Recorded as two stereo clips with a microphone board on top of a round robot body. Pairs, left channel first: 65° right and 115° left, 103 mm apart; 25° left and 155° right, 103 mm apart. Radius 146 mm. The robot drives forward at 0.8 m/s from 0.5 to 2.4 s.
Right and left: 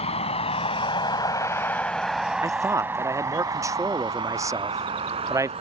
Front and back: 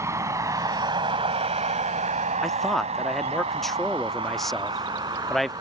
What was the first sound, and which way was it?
A vehicle, 95° right.